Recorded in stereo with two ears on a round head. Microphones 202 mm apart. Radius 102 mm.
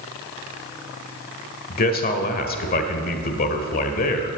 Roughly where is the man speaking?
Left.